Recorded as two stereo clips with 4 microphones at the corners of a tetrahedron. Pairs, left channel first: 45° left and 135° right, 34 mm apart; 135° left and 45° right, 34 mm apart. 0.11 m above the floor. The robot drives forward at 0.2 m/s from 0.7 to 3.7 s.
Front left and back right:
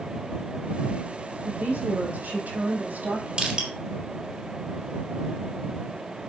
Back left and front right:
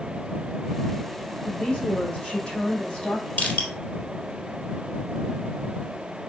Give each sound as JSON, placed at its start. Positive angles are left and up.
{"t": 1.4, "sound": "a woman speaking", "azimuth_deg": -165, "distance_m": 5.0}
{"t": 3.4, "sound": "crushing", "azimuth_deg": 160, "distance_m": 3.0}